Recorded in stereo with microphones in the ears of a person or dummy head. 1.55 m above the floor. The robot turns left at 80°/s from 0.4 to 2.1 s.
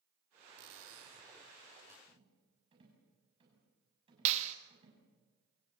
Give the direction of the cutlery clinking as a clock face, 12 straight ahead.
2 o'clock.